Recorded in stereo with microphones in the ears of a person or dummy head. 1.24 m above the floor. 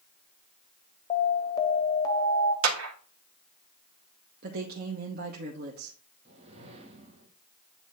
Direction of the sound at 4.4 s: 55° right (ahead or behind).